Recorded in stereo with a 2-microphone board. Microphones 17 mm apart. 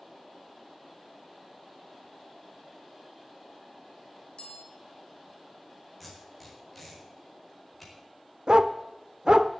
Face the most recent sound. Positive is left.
turn(degrees=-45)  # may be behind; listen again after turning